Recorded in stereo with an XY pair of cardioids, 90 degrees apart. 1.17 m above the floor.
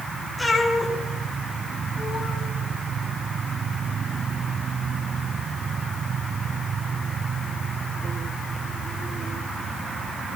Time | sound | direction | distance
0.4 | a cat meowing | 15° left | 7.5 m